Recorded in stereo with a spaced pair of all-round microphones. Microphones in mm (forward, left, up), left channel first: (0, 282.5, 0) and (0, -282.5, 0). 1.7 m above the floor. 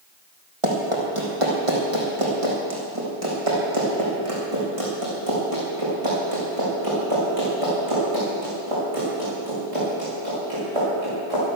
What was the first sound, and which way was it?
Running footsteps, 60° right (ahead or behind).